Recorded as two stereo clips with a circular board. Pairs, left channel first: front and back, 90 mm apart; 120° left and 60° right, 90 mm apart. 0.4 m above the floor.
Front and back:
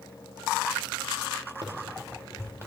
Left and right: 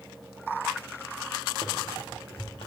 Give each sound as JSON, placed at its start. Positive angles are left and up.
{"t": 1.6, "sound": "running footsteps", "azimuth_deg": 145, "distance_m": 2.0}